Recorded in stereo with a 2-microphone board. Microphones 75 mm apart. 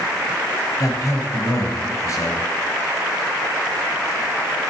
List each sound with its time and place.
0.8 s a man speaking: 45° left (ahead or behind), 2 m